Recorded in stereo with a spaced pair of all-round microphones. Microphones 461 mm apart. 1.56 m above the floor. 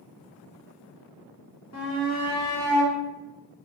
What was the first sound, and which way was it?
A shout, 35° left (ahead or behind).